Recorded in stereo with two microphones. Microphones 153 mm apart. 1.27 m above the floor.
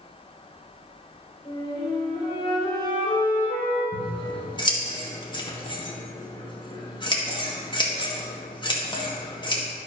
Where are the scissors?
30° left (ahead or behind), 1.8 m.